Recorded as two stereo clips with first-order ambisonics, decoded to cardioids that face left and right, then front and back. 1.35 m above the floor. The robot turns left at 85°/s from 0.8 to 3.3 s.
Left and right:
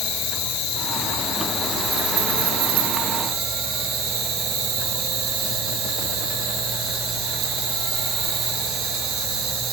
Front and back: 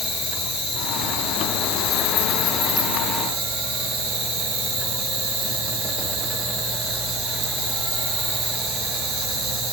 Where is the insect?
65° left, 5.5 m; by 9.7 s 150° right, 5.5 m.